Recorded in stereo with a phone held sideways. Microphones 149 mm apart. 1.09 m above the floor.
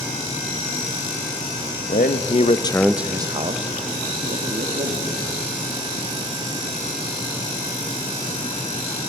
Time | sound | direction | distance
1.9 | a man speaking | 70° left (ahead or behind) | 0.9 m